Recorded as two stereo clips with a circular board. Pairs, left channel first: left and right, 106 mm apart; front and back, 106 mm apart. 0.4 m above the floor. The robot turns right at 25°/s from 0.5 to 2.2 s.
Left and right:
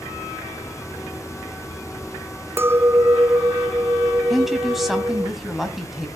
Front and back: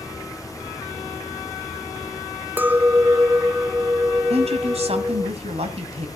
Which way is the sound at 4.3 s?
Straight behind.